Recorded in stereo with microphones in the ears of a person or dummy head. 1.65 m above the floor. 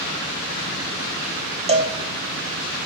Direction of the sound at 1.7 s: 25° right (ahead or behind).